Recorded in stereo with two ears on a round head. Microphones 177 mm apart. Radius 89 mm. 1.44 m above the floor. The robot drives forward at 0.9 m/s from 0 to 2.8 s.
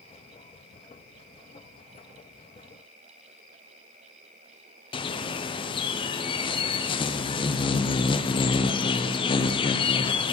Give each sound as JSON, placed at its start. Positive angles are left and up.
{"t": 4.9, "sound": "a bird", "side_deg": 25, "distance_m": 0.6}